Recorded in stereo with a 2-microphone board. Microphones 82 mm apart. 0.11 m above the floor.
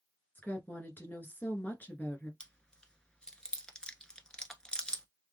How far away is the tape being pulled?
I don't hear tape being pulled.